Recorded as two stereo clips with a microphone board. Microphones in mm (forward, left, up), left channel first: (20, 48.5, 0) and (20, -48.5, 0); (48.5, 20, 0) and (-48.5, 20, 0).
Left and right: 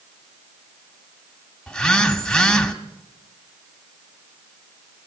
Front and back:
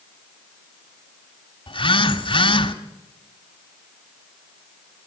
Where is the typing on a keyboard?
No typing on a keyboard in this recording.